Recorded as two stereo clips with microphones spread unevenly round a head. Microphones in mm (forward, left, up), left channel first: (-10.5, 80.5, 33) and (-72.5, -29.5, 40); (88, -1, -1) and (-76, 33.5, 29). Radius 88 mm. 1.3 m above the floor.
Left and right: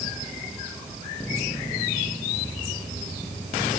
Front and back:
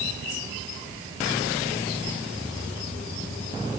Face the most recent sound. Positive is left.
No sound to turn to.